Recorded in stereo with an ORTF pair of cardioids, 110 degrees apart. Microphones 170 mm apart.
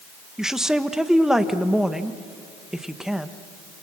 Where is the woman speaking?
5° right, 1.4 m.